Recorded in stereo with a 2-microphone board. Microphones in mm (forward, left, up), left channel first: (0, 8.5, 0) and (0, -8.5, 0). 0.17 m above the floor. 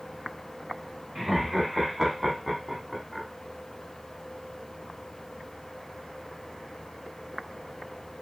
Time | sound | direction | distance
1.1 | laughter | 20° right (ahead or behind) | 1.6 m